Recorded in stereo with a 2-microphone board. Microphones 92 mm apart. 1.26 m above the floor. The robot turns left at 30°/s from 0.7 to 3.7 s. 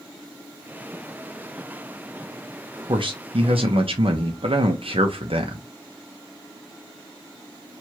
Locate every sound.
2.9 s a man speaking: 65° right (ahead or behind), 0.7 m; by 5.7 s 80° right, 0.7 m